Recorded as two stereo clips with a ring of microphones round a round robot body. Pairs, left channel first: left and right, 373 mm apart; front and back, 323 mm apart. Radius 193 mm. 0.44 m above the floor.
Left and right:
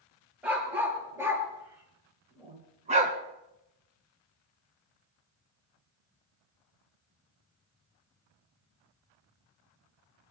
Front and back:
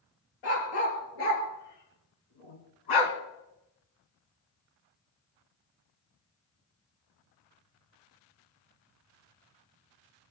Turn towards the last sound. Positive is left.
turn(degrees=-20)